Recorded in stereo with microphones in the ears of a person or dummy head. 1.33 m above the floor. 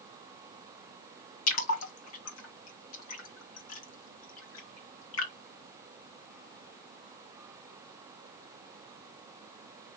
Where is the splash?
75° left (ahead or behind), 1.7 m.